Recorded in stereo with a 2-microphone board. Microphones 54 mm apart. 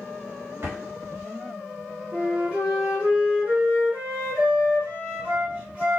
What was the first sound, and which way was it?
A drawer, 45° right (ahead or behind).